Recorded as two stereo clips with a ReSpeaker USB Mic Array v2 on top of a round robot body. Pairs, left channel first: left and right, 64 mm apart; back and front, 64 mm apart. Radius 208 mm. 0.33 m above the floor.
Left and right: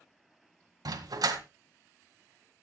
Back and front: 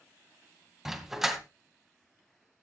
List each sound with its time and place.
0.8 s a dog barking: 85° right, 1.9 m